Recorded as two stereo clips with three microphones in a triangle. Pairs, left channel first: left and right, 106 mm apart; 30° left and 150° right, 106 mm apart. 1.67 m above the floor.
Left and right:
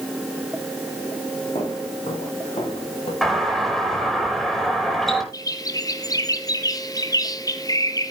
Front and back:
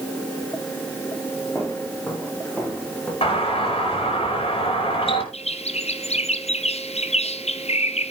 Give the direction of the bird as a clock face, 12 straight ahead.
11 o'clock.